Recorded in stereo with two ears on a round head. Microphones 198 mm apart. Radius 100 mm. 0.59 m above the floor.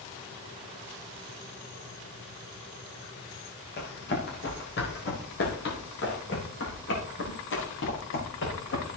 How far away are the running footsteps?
About 6.5 m.